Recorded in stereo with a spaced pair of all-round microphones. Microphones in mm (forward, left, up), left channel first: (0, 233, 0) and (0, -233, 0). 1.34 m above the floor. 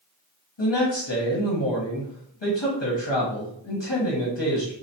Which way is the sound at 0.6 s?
65° left (ahead or behind).